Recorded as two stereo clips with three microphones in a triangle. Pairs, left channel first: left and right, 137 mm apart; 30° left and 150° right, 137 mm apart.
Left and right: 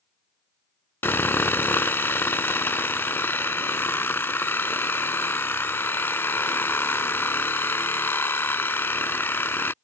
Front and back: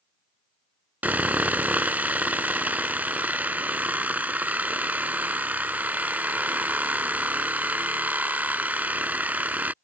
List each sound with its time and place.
1.0 s sawing: 145° left